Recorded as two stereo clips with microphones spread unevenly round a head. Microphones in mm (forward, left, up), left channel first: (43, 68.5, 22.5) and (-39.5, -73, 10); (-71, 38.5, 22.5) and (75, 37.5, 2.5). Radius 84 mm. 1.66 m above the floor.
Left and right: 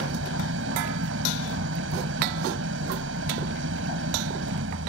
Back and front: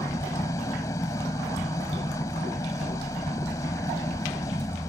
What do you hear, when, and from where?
0.0 s an engine running: 110° right